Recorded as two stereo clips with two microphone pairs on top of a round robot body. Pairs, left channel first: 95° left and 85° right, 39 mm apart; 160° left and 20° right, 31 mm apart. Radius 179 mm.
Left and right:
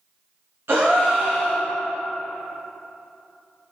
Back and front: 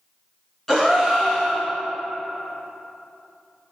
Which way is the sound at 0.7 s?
125° right.